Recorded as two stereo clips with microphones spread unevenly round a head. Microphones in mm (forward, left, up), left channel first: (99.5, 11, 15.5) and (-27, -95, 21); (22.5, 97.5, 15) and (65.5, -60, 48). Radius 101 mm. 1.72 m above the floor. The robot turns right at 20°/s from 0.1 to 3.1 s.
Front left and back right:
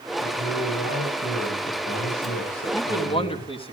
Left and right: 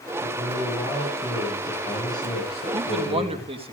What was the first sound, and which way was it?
A man speaking, straight ahead.